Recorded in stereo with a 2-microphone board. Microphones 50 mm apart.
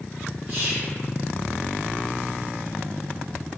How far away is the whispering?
About 1.8 m.